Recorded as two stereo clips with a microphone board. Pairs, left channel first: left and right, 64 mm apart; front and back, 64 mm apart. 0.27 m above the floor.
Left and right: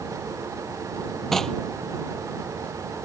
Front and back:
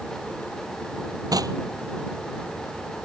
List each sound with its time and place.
1.3 s knocking: 170° left